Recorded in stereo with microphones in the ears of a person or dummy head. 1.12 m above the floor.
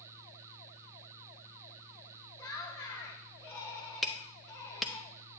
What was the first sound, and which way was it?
Laughter, 15° left (ahead or behind).